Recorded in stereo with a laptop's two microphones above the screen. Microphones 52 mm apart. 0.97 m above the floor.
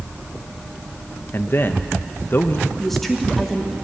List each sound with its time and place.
1.3 s a man speaking: 45° left (ahead or behind), 1.0 m
2.8 s a woman speaking: 5° left (ahead or behind), 2 m